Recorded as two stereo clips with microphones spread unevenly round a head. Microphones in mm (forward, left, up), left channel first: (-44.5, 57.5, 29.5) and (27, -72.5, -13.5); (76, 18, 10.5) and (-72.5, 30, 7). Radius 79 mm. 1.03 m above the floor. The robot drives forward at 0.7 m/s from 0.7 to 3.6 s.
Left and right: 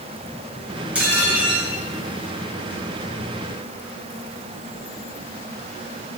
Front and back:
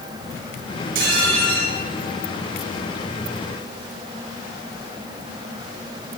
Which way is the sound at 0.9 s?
145° right.